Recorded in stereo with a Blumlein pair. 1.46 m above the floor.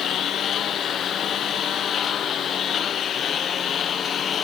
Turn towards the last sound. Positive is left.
turn(degrees=25)